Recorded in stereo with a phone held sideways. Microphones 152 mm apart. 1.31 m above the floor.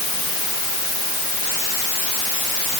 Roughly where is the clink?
I don't hear a clink.